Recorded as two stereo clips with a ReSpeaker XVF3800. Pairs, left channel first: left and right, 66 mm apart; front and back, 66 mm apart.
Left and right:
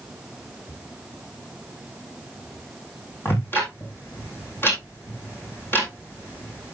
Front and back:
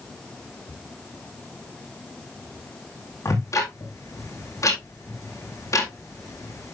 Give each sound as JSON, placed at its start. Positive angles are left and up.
{"t": 3.2, "sound": "ticking", "azimuth_deg": 35, "distance_m": 3.5}